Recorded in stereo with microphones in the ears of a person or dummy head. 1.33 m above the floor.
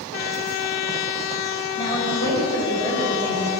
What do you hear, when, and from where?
1.8 s a woman speaking: 25° left (ahead or behind), 5 m